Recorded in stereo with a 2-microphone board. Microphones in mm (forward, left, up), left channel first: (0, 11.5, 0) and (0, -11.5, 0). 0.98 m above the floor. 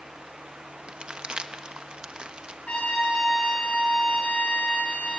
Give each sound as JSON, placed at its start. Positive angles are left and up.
{"t": 0.9, "sound": "crumpling", "side_deg": -50, "distance_m": 1.0}
{"t": 2.7, "sound": "a trumpet", "side_deg": 80, "distance_m": 8.5}